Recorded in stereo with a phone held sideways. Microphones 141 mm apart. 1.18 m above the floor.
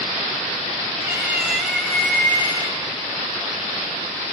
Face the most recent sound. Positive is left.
turn(degrees=35)  # may be behind; listen again after turning